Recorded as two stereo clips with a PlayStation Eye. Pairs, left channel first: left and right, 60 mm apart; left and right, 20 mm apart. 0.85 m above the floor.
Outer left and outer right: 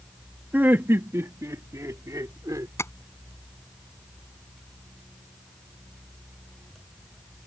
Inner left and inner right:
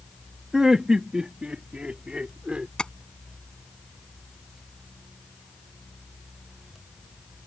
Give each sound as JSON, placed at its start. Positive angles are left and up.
{"t": 0.5, "sound": "laughter", "side_deg": -30}
{"t": 2.8, "sound": "tapping", "side_deg": 50}